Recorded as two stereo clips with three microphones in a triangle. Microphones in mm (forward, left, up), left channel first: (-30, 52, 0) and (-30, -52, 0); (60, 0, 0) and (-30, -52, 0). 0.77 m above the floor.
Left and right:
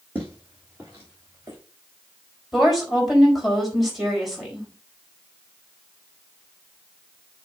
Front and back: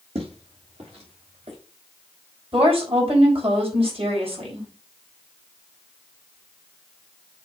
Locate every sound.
0.1 s footsteps: 165° right, 3 m; by 1.6 s 155° right, 3.5 m
2.5 s a woman speaking: straight behind, 4 m